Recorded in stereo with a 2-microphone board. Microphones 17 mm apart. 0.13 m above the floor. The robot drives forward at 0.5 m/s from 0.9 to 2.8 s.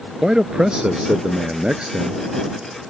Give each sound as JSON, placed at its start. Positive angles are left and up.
{"t": 0.2, "sound": "a man speaking", "side_deg": -50}